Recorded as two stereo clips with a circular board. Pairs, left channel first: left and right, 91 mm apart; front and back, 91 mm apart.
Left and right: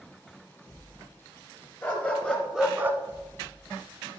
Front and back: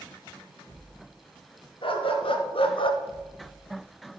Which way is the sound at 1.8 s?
25° left.